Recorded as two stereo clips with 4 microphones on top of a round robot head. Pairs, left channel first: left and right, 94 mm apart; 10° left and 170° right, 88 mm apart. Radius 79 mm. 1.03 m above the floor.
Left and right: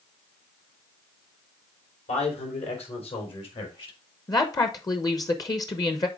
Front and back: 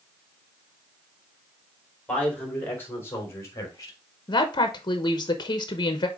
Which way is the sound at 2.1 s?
85° left.